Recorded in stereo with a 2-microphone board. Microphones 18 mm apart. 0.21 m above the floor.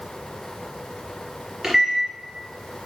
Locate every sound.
1.6 s a microwave: 30° right (ahead or behind), 1.7 m